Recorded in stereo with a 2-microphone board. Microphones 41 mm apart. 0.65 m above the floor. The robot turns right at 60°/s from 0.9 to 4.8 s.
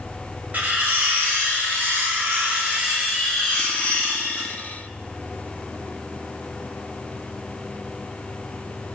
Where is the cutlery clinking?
140° right, 0.6 m; by 4.5 s 75° left, 0.6 m.